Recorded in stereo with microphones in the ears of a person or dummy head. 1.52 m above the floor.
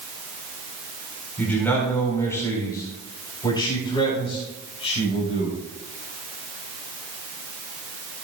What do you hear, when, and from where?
1.4 s a man speaking: 10° left (ahead or behind), 4.5 m; by 5.6 s 40° left (ahead or behind), 5 m